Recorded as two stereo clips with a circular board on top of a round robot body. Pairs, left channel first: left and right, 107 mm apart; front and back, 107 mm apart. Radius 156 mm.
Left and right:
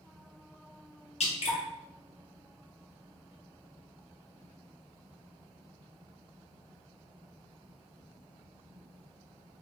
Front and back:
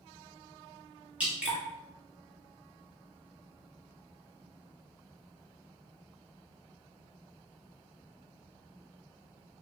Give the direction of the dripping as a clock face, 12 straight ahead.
9 o'clock.